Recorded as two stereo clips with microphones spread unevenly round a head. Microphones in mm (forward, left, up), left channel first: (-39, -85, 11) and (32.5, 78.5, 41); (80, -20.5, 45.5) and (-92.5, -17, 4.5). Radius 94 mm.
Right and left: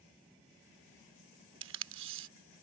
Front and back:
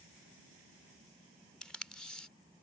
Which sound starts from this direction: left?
Tape being pulled, at 1.6 s.